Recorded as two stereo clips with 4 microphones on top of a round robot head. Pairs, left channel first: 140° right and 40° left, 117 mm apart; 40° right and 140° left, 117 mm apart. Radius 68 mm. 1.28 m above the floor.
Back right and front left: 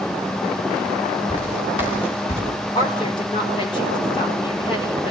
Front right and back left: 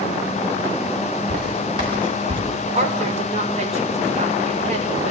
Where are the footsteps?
Straight behind, 8.5 m.